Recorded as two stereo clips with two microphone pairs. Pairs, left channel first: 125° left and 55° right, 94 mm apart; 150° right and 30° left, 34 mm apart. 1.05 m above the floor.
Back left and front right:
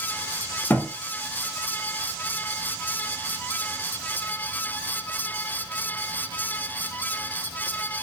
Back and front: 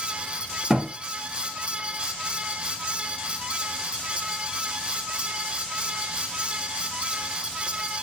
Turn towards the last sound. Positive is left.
turn(degrees=75)